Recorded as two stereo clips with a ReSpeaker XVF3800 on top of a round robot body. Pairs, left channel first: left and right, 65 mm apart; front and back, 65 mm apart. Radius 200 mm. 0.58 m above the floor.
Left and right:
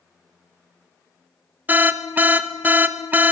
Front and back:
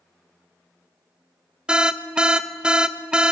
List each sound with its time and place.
1.7 s an alarm: 115° right, 0.7 m